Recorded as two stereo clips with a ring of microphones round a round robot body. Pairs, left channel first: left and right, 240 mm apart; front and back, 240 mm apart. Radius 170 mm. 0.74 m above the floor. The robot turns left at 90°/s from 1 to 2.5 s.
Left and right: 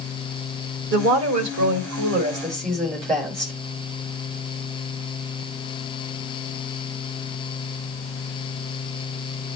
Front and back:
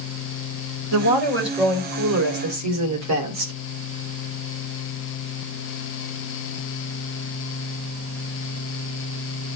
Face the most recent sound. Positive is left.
turn(degrees=175)